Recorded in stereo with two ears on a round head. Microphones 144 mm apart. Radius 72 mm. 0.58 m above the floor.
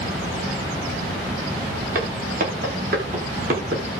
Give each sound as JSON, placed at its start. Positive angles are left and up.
{"t": 1.9, "sound": "footsteps", "side_deg": -60, "distance_m": 9.5}